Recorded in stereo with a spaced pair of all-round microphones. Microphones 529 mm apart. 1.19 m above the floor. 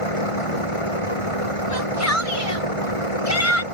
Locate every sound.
0.0 s a vehicle: 75° left (ahead or behind)
1.7 s a shout: 30° left (ahead or behind)